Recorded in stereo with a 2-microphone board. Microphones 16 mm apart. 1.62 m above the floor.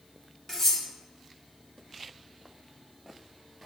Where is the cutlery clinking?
20° left (ahead or behind), 1.0 m.